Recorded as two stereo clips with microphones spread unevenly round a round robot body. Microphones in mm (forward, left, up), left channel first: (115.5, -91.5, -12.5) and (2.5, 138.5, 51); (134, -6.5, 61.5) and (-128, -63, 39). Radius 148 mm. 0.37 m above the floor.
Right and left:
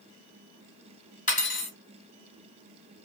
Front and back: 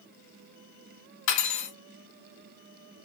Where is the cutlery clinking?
10° right, 1.6 m.